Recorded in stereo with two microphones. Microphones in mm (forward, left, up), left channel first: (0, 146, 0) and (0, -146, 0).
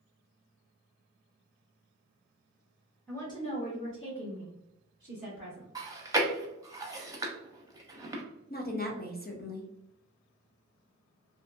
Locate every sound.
3.1 s a woman speaking: 5° left (ahead or behind), 1.0 m; by 5.7 s 80° left, 2.0 m
5.8 s chewing: 10° right (ahead or behind), 0.6 m
8.5 s a woman speaking: 35° left (ahead or behind), 0.7 m